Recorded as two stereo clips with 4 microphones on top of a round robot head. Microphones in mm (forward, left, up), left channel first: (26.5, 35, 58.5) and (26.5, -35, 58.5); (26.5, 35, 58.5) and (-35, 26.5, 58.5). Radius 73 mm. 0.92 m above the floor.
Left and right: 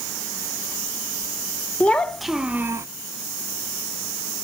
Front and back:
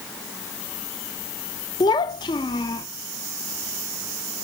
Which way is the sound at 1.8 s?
20° left.